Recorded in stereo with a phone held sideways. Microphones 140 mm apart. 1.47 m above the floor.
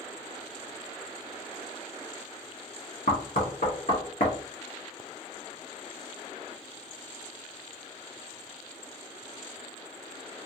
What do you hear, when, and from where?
3.1 s knocking: 80° left, 1.1 m